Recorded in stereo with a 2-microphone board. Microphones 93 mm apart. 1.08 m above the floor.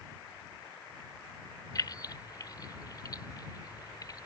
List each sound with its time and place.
1.8 s keys jangling: 45° left (ahead or behind)